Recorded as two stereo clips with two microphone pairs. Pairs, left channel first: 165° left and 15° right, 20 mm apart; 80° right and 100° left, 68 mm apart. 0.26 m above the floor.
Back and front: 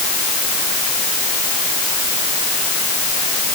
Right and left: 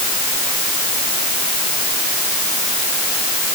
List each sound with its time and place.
Only background noise.